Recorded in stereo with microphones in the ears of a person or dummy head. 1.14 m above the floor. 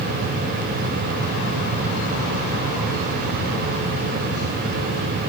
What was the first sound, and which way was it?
Only background noise.